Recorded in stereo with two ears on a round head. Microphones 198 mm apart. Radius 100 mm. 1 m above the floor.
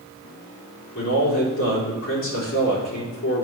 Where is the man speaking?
65° left (ahead or behind), 3.5 m.